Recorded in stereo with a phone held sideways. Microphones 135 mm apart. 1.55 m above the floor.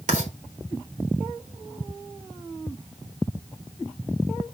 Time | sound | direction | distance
0.1 | writing | 70° right (ahead or behind) | 3.5 m